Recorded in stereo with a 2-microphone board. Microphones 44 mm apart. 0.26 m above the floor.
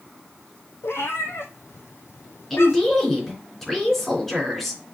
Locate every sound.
0.8 s a cat meowing: 65° left (ahead or behind), 1.1 m
2.5 s a woman speaking: 10° left (ahead or behind), 3.5 m